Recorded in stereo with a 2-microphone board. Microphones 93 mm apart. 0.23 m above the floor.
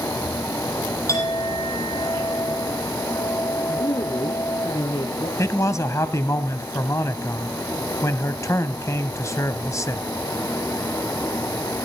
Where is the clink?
35° left (ahead or behind), 5.5 m.